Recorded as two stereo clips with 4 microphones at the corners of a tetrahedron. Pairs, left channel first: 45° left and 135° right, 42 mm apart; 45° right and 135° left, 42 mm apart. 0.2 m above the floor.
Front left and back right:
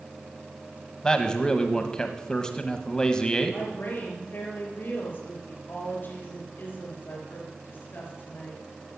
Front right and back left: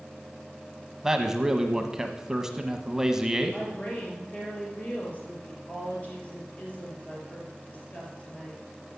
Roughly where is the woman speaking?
Ahead.